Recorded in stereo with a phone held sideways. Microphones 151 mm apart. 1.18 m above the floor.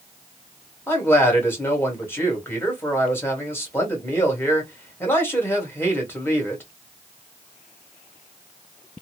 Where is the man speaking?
15° left (ahead or behind), 1.4 m.